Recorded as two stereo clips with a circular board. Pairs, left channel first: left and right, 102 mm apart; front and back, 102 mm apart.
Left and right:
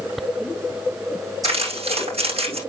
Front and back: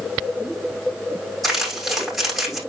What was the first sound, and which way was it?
Crumpling, 95° right.